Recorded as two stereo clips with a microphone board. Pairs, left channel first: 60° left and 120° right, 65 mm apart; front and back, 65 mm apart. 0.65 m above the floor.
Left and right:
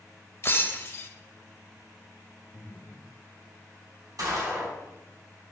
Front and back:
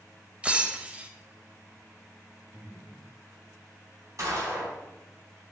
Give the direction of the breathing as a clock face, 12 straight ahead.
8 o'clock.